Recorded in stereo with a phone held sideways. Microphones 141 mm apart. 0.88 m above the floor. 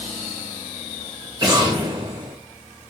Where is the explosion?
35° right (ahead or behind), 2.5 m.